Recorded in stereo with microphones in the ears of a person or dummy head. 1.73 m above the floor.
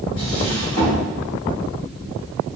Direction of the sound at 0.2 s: 25° left (ahead or behind).